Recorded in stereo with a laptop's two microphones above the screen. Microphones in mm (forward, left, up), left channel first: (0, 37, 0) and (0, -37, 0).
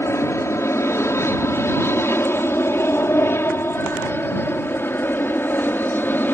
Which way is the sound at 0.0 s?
35° left (ahead or behind).